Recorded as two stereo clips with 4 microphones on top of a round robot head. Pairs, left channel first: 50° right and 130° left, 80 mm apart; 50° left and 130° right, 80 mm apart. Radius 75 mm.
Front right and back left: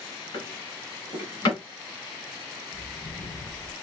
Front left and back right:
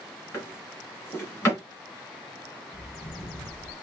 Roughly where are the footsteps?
Ahead.